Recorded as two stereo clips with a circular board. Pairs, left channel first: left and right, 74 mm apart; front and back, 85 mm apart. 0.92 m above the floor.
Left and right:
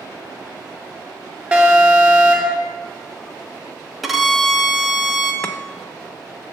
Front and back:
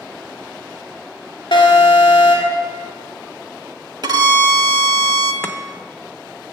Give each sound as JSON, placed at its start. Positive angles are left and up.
{"t": 1.5, "sound": "an alarm", "azimuth_deg": -20, "distance_m": 2.0}
{"t": 4.0, "sound": "a violin", "azimuth_deg": 180, "distance_m": 0.9}
{"t": 5.4, "sound": "chopping", "azimuth_deg": 35, "distance_m": 0.8}